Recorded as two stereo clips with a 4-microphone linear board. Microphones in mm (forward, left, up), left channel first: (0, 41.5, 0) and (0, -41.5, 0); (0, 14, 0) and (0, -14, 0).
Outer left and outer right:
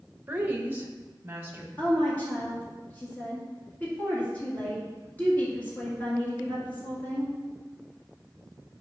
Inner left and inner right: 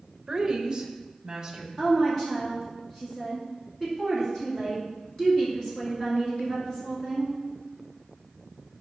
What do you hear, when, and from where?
0.3 s a woman speaking: 20° right (ahead or behind), 1.0 m; by 1.7 s 25° right (ahead or behind), 1.9 m
1.8 s a woman speaking: 25° left (ahead or behind), 2 m